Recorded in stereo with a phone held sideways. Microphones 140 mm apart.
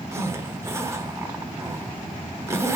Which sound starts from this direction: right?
A zipper, at 0.1 s.